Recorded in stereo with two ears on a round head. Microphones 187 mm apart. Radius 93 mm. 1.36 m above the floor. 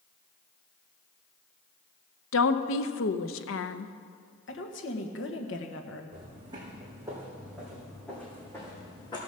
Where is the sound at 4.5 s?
65° left (ahead or behind), 1.5 m.